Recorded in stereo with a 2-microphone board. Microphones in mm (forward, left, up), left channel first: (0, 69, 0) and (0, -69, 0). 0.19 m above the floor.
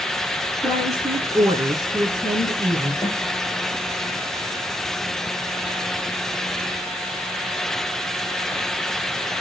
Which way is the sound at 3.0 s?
25° left (ahead or behind).